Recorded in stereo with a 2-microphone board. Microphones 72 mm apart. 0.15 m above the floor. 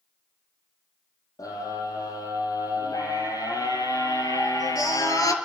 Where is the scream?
60° left (ahead or behind), 6 m.